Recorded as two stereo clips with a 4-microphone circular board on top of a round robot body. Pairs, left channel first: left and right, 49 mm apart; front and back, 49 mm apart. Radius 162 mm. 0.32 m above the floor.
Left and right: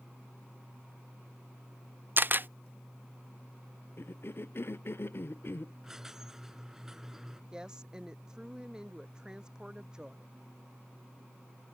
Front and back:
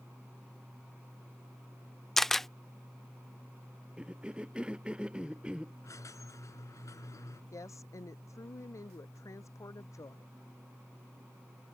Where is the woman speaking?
15° right.